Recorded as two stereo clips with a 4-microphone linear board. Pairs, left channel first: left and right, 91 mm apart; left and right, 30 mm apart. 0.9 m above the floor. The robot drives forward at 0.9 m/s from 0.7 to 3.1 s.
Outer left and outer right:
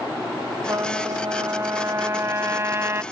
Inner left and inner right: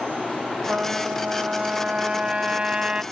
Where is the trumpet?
40° right (ahead or behind); by 3.0 s 30° right (ahead or behind).